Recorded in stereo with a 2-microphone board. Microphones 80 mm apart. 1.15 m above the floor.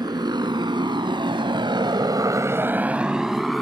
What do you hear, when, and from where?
0.0 s a motorcycle: 60° right (ahead or behind); by 3.6 s centre (ahead or behind)